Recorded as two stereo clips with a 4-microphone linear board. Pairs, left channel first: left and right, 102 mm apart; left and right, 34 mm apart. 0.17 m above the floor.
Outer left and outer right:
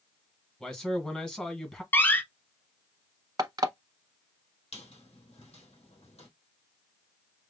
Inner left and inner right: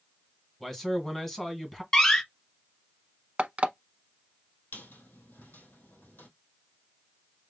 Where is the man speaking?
5° left (ahead or behind), 1.7 m.